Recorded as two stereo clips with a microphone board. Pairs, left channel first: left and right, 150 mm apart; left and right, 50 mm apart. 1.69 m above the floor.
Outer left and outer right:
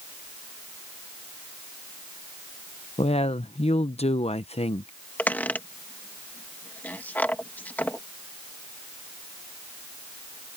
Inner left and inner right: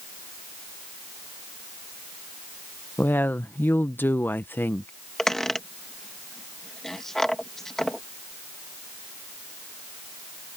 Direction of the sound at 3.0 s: 45° left (ahead or behind).